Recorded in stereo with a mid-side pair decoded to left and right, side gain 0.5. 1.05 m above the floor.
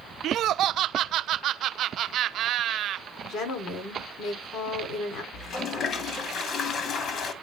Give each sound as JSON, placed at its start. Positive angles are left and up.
{"t": 0.2, "sound": "laughter", "azimuth_deg": -65, "distance_m": 0.5}
{"t": 3.2, "sound": "a woman speaking", "azimuth_deg": 70, "distance_m": 3.5}
{"t": 5.3, "sound": "a toilet flushing", "azimuth_deg": 55, "distance_m": 2.0}